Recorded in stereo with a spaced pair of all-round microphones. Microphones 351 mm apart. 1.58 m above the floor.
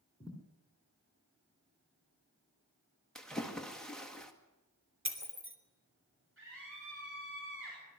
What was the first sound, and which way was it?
A thud, 10° left (ahead or behind).